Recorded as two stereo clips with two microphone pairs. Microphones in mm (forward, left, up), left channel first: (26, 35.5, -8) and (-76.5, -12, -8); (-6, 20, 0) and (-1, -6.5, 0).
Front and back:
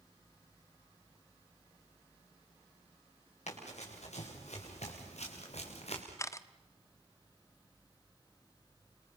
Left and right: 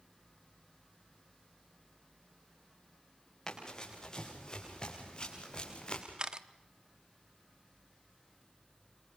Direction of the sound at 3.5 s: 35° left.